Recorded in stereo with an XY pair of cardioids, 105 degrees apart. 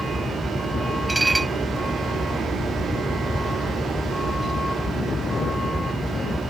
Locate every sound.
0.0 s a vehicle: 15° left
1.1 s dishes clattering: 15° right